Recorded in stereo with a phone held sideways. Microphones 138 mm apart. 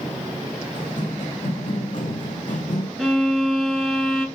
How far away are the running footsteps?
About 4.5 m.